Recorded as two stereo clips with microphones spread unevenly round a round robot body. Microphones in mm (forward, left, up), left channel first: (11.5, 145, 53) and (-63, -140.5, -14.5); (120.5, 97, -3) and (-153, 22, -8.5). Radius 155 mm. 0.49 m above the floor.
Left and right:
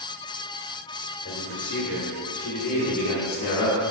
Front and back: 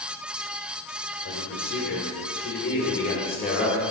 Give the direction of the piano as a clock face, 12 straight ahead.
No piano in this recording.